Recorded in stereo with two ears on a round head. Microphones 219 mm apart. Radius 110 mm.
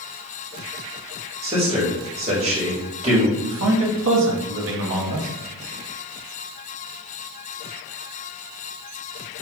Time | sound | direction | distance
1.4 | a man speaking | 25° right (ahead or behind) | 1.2 m
3.4 | a man speaking | 50° right (ahead or behind) | 0.8 m